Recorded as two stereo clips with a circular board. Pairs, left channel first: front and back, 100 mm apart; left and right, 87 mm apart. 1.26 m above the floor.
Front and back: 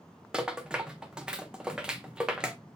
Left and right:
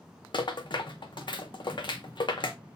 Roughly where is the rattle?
Left.